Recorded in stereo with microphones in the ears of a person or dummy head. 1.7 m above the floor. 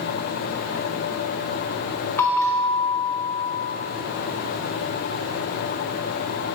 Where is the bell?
10° left (ahead or behind), 0.6 m.